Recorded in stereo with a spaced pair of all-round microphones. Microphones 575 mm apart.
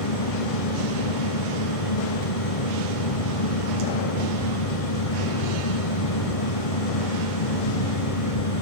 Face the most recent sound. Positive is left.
turn(degrees=70)  # may be behind; listen again after turning